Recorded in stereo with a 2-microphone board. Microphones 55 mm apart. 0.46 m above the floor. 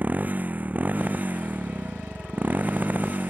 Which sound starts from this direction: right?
A motorcycle, at 0.0 s.